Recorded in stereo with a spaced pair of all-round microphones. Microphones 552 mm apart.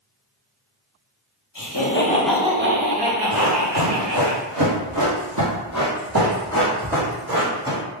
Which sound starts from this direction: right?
Running footsteps, at 3.3 s.